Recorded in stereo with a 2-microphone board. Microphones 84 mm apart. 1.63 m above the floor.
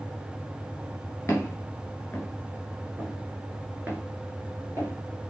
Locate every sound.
1.3 s footsteps: 30° left (ahead or behind), 1.8 m; by 5.3 s 45° right (ahead or behind), 2 m